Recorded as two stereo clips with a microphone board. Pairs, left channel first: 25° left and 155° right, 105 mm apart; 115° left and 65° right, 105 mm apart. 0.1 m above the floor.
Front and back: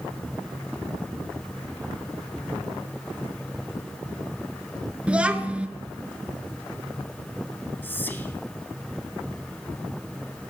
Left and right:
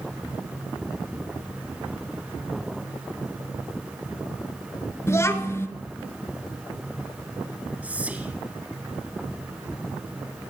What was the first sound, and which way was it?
A child speaking, 135° left.